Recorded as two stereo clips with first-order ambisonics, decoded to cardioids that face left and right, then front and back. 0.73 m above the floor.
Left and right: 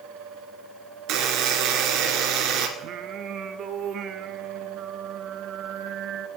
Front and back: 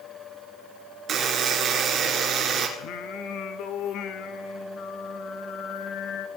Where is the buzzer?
125° right, 1.9 m.